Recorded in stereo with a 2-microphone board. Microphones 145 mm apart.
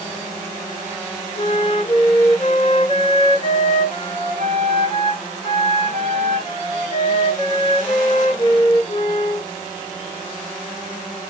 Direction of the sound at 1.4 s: 35° left (ahead or behind).